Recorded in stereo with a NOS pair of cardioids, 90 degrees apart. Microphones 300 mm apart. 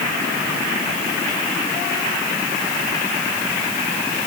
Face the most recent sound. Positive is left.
No sound to turn to.